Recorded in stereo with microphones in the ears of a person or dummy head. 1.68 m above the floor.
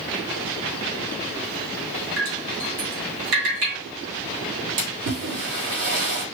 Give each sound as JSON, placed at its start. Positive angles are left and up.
{"t": 2.2, "sound": "dripping", "side_deg": -50, "distance_m": 2.0}
{"t": 4.8, "sound": "a splash", "side_deg": -65, "distance_m": 2.0}